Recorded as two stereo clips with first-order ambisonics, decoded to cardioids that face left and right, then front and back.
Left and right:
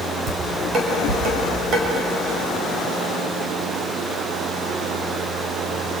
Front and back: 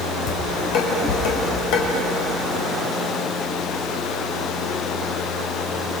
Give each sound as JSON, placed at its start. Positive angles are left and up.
{"t": 0.3, "sound": "dishes clattering", "azimuth_deg": -30, "distance_m": 5.0}